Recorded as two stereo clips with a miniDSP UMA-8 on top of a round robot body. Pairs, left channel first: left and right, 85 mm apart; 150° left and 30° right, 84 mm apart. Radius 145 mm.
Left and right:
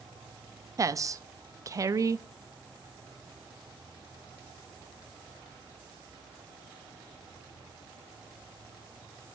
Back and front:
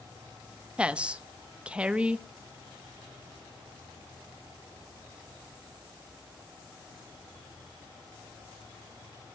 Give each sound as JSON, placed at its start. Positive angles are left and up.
{"t": 0.8, "sound": "a woman speaking", "azimuth_deg": -100, "distance_m": 0.8}